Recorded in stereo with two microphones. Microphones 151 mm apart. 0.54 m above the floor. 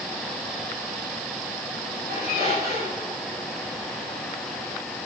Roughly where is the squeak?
Right.